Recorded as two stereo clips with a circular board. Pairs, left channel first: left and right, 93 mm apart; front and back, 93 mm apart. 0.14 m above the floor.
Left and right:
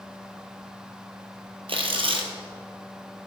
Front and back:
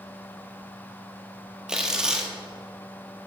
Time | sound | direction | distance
1.7 | tearing paper | 100° right | 1.5 m